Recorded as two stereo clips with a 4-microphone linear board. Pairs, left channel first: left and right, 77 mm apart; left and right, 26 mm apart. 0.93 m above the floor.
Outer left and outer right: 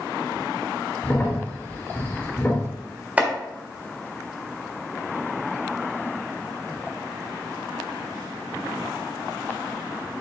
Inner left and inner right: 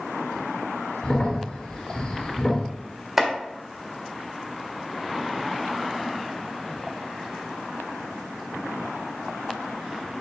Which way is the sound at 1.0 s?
25° left (ahead or behind).